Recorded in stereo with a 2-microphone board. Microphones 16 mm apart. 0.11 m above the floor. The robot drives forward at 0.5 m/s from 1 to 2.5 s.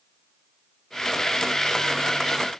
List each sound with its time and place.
Only background noise.